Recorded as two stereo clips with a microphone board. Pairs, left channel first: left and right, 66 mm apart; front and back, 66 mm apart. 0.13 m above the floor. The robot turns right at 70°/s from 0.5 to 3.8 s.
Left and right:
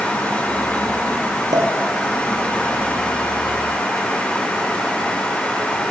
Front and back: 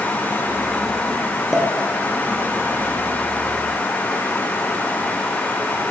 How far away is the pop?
About 2.5 m.